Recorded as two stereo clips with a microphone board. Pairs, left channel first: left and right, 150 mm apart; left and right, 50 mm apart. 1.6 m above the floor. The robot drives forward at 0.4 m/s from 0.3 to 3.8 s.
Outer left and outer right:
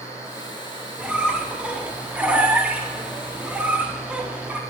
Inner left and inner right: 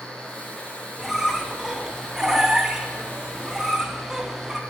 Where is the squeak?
10° right (ahead or behind), 1.2 m.